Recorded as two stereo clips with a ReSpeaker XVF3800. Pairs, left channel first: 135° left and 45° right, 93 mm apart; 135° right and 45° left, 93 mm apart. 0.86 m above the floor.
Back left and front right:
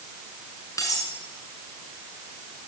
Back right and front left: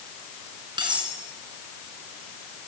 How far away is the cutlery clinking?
About 5.5 m.